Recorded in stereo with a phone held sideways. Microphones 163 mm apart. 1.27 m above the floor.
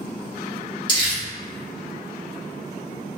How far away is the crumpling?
About 1.9 m.